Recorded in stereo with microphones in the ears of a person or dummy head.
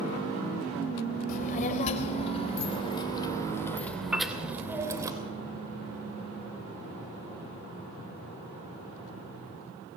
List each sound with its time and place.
1.3 s a child speaking: 50° left (ahead or behind), 3 m; by 5.1 s 20° right (ahead or behind), 2.5 m
4.1 s a piano: 5° right (ahead or behind), 1.1 m